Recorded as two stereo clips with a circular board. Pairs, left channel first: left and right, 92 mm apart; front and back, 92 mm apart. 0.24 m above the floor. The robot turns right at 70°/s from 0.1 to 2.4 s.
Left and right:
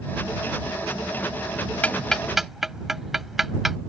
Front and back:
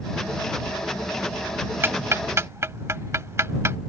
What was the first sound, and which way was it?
Ticking, 145° left.